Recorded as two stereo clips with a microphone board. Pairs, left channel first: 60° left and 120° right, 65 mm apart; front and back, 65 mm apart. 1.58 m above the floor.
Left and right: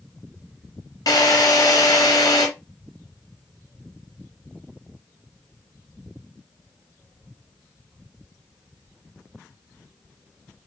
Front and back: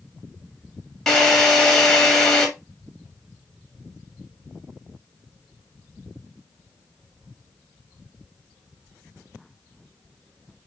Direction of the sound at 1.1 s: 85° left.